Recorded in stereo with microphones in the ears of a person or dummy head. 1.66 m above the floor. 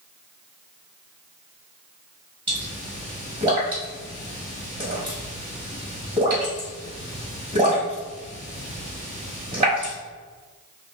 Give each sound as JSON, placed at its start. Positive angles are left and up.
{"t": 2.5, "sound": "a pop", "side_deg": -25, "distance_m": 1.5}